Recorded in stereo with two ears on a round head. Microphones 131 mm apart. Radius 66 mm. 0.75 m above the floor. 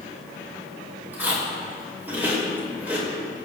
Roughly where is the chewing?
Centre.